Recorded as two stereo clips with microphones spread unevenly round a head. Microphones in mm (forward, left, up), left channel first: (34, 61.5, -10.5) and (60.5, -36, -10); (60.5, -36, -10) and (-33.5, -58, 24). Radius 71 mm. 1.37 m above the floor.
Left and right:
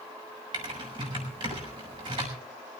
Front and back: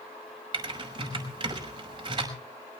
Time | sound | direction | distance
0.5 | typing on a keyboard | 135° right | 5.5 m